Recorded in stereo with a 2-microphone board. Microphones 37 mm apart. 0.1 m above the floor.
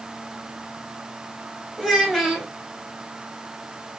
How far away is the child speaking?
About 2.5 m.